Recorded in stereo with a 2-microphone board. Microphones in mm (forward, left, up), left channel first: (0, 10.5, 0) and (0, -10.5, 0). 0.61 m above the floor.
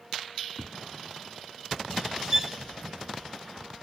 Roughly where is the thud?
Right.